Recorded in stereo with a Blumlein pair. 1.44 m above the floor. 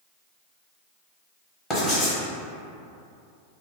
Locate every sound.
1.7 s writing: 10° left, 1.2 m